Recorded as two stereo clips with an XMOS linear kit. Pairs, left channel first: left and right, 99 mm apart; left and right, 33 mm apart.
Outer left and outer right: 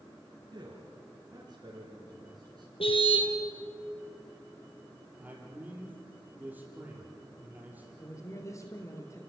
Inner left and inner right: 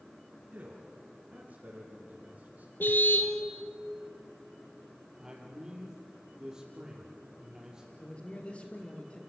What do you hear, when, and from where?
0.5 s a man speaking: 45° right (ahead or behind), 3.5 m
2.8 s a car horn: 70° left (ahead or behind), 2 m
5.2 s a man speaking: 20° right (ahead or behind), 5.5 m
8.0 s a man speaking: 35° left (ahead or behind), 4 m